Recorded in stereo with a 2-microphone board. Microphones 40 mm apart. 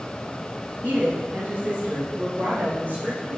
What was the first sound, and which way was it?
A woman speaking, 60° right (ahead or behind).